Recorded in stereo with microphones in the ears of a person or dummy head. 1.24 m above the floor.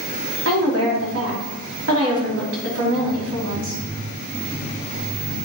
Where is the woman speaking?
80° right, 3 m.